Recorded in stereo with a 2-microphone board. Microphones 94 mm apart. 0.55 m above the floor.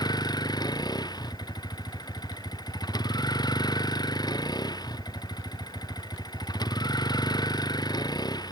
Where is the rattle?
I don't hear a rattle.